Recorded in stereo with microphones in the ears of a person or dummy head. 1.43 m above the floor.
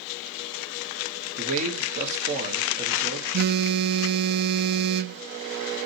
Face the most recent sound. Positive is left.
turn(degrees=-45)  # may be behind; listen again after turning